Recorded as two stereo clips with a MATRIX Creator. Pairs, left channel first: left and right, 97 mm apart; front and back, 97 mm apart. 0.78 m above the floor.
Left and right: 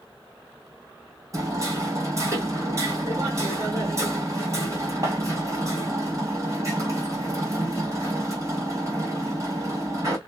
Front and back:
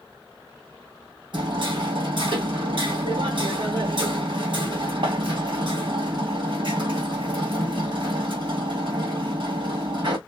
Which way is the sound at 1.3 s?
145° right.